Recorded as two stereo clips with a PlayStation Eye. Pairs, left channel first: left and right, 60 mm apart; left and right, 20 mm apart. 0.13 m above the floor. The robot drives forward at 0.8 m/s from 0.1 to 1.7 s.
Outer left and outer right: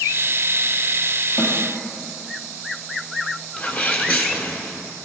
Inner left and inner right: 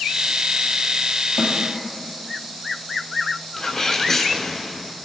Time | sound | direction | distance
1.4 | a snare drum | 65° left (ahead or behind) | 3 m
3.6 | a sneeze | 30° left (ahead or behind) | 1.3 m